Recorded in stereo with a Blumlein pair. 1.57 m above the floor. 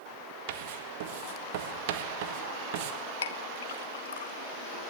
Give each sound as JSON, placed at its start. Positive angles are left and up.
{"t": 0.5, "sound": "writing", "azimuth_deg": -50, "distance_m": 1.7}
{"t": 3.2, "sound": "a clink", "azimuth_deg": 65, "distance_m": 1.3}